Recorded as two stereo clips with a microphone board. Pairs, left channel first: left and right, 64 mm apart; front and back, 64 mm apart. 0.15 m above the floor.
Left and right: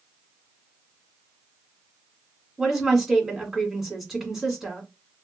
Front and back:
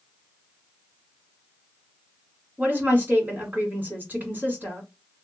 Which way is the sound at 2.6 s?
170° right.